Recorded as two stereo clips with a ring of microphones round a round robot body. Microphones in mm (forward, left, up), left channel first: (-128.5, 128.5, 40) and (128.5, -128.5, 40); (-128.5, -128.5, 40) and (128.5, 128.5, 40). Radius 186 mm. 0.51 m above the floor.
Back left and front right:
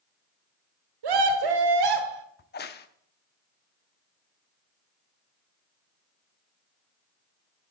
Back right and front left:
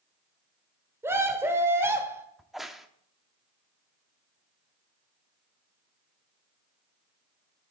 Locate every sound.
1.0 s a scream: 40° right, 1.4 m
2.4 s a crack: 135° left, 0.7 m